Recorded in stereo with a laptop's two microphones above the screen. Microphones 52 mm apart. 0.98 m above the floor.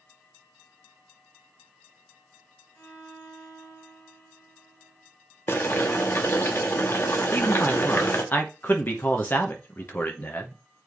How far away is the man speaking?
About 1.0 m.